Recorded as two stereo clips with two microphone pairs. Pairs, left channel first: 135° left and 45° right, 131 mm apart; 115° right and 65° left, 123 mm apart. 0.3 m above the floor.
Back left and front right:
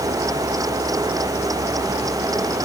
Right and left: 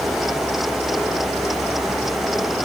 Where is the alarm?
No alarm in this recording.